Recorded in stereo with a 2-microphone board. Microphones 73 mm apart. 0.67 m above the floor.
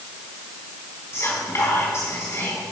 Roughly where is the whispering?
Left.